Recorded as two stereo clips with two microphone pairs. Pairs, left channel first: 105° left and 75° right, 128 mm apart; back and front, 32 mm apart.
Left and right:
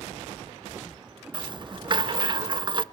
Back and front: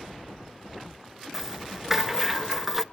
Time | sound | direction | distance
1.3 | a rattle | 80° right | 0.5 m